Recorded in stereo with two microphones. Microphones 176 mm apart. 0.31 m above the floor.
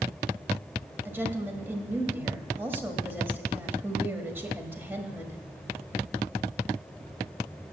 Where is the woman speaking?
10° right (ahead or behind), 1.2 m.